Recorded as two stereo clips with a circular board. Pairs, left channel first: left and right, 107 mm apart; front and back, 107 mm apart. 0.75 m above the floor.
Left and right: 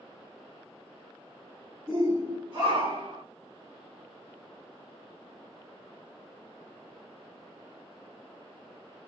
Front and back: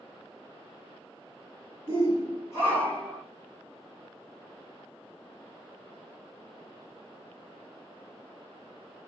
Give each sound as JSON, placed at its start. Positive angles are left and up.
{"t": 1.9, "sound": "a shout", "azimuth_deg": -25, "distance_m": 2.0}